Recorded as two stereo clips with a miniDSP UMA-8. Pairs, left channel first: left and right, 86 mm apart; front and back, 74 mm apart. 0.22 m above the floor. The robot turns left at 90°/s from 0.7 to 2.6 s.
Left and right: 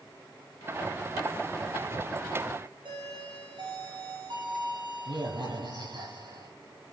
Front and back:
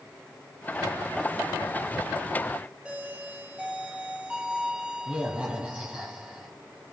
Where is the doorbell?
105° right, 7 m.